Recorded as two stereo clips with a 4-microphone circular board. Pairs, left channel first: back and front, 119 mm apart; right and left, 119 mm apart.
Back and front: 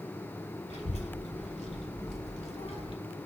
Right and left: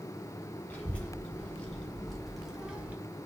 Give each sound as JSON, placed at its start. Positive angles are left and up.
{"t": 0.7, "sound": "a child speaking", "azimuth_deg": -165, "distance_m": 3.0}